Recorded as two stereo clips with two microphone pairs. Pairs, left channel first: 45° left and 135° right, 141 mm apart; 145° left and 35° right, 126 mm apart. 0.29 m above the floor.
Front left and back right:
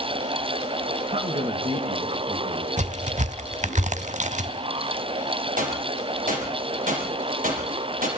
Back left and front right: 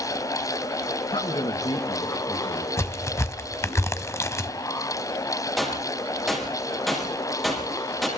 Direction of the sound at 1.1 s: 175° right.